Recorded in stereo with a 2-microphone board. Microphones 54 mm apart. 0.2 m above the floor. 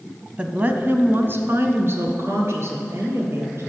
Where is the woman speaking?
20° right (ahead or behind), 1.0 m; by 3.7 s 55° right (ahead or behind), 3.5 m.